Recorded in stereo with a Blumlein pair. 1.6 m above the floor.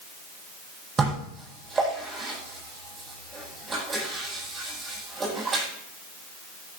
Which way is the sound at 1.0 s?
20° right.